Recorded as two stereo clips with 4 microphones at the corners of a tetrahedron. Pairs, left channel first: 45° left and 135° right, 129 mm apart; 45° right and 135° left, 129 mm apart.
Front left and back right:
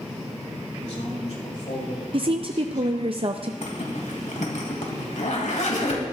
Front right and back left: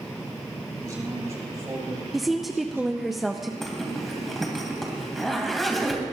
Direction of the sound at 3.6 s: 45° left.